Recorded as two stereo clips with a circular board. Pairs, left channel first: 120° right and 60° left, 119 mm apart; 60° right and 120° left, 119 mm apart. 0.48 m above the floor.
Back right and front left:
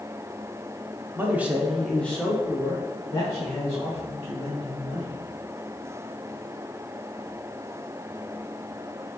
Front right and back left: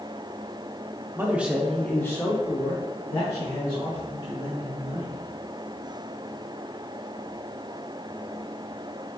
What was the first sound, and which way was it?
A man speaking, 90° left.